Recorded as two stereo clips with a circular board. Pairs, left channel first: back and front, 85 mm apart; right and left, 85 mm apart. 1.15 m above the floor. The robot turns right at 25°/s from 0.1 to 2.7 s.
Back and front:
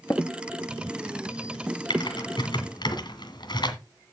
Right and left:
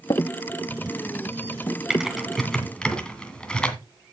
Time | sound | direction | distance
0.1 | tapping | 120° right | 1.0 m
1.9 | typing on a keyboard | 175° left | 2 m